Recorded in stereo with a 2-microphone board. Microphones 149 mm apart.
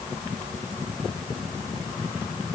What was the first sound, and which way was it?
Only background noise.